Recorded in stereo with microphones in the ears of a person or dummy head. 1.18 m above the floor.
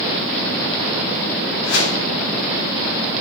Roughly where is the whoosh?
Left.